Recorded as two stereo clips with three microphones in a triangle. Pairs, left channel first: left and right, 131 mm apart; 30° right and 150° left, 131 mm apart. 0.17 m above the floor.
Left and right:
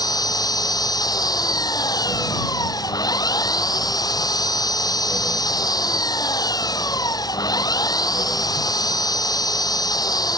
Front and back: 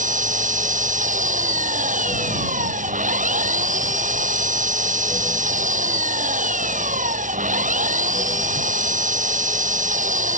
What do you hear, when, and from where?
0.0 s an engine running: 150° left